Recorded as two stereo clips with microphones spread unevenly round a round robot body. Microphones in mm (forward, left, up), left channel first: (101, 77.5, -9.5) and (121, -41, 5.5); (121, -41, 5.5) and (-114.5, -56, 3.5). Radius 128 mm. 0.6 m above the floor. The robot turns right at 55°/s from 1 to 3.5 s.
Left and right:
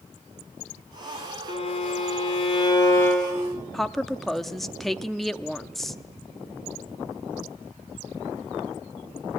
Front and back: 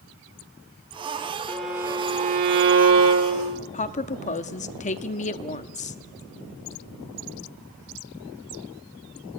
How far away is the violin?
About 1.6 m.